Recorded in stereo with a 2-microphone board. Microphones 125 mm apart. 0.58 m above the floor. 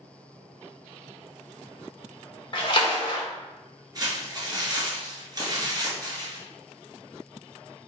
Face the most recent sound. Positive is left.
turn(degrees=-30)  # may be behind; listen again after turning